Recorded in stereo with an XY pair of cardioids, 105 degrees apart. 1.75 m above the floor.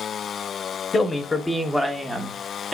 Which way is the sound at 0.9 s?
35° left.